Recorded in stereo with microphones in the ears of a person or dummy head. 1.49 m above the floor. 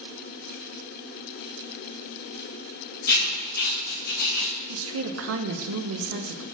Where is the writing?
60° left (ahead or behind), 2.5 m.